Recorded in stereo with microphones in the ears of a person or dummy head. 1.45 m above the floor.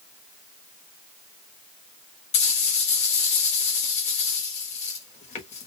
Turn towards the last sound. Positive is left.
turn(degrees=35)  # may be behind; listen again after turning